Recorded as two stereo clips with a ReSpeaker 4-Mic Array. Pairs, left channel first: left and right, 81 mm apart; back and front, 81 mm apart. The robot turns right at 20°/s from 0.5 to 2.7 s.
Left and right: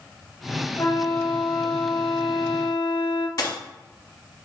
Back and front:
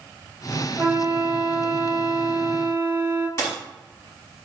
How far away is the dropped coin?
About 1.4 m.